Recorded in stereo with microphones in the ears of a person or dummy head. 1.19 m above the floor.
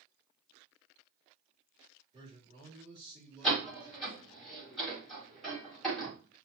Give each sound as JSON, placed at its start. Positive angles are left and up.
{"t": 2.1, "sound": "a man speaking", "side_deg": -25, "distance_m": 3.0}
{"t": 3.4, "sound": "a door slam", "side_deg": 0, "distance_m": 2.5}